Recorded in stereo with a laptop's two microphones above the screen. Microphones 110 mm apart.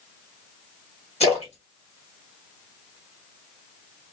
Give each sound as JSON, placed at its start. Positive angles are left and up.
{"t": 1.2, "sound": "a splash", "side_deg": 75, "distance_m": 1.4}